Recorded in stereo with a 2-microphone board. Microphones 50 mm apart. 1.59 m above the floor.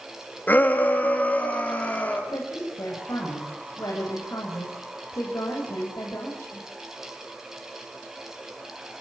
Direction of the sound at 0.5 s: 35° left (ahead or behind).